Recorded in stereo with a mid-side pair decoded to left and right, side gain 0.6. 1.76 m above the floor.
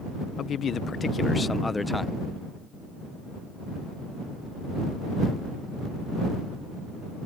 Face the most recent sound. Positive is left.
turn(degrees=5)